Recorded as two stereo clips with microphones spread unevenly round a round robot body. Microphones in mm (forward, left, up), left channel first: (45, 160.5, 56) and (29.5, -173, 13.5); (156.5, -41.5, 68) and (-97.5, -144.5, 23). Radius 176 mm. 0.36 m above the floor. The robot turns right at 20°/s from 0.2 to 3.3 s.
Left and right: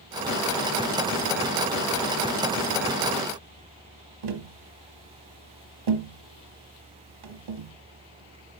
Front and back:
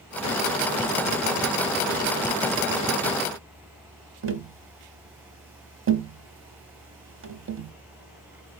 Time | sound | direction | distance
4.2 | tapping | 115° right | 1.1 m